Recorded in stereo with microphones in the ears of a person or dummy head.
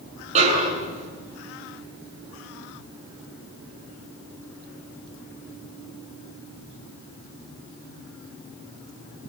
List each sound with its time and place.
0.3 s a snare drum: 40° right (ahead or behind), 8 m